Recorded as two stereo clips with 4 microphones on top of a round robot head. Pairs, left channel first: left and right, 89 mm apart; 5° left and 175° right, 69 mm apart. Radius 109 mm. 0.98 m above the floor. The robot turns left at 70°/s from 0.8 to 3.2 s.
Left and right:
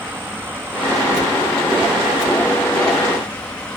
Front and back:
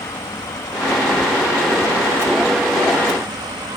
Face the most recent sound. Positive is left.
turn(degrees=170)